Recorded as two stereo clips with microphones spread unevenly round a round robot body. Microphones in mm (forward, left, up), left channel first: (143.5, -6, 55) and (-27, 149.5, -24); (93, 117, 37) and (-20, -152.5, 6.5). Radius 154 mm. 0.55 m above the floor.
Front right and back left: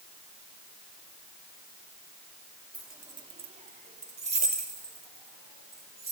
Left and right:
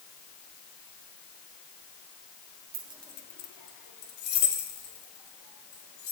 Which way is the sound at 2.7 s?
145° right.